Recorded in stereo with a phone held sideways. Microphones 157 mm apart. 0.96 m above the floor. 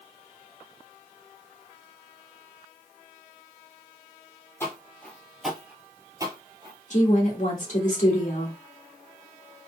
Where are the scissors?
No scissors in this recording.